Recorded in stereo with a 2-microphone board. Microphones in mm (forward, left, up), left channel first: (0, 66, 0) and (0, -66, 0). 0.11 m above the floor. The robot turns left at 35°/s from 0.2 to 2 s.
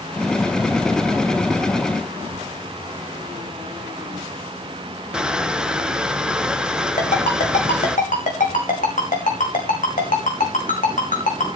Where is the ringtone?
65° left (ahead or behind), 5 m.